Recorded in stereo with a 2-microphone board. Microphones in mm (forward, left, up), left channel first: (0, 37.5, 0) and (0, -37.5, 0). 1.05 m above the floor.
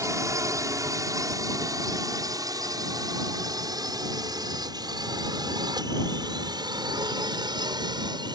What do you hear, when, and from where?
0.0 s a drone: 45° right (ahead or behind); by 8.4 s 70° right (ahead or behind)